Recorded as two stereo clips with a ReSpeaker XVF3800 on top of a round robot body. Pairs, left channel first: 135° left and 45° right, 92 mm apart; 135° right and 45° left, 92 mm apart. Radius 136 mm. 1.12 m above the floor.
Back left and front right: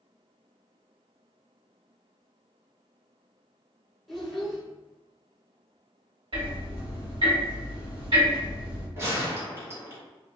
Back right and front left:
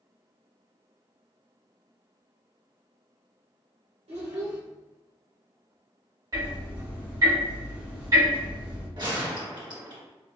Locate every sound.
4.1 s a child speaking: 45° left, 1.1 m
6.3 s ticking: 10° right, 1.5 m
9.0 s a gunshot: 15° left, 1.5 m